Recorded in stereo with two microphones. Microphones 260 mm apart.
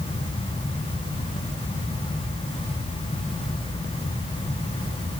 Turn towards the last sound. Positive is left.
No sound to turn to.